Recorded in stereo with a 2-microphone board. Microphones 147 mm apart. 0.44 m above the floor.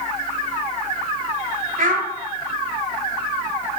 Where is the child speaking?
75° right (ahead or behind), 1.8 m.